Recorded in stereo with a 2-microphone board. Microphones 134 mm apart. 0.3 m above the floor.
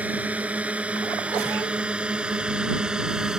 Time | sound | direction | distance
0.0 | a drone | 10° right (ahead or behind) | ?